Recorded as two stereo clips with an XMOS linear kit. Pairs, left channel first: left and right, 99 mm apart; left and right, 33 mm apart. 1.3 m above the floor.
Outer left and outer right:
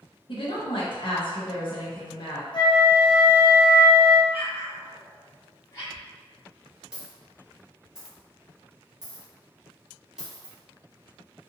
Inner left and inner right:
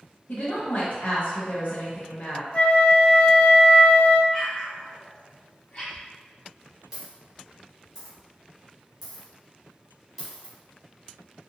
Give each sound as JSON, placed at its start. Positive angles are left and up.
{"t": 0.3, "sound": "a woman speaking", "side_deg": 55, "distance_m": 1.0}
{"t": 2.5, "sound": "a flute", "side_deg": 50, "distance_m": 0.6}
{"t": 4.3, "sound": "an explosion", "side_deg": 30, "distance_m": 1.3}
{"t": 5.9, "sound": "a dropped coin", "side_deg": -5, "distance_m": 1.2}